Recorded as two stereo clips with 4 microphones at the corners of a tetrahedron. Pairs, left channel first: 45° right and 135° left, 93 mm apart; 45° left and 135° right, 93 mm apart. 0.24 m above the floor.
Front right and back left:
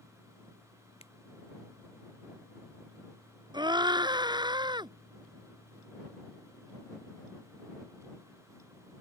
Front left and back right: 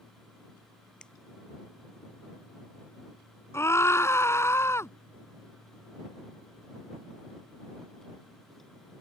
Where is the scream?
105° left.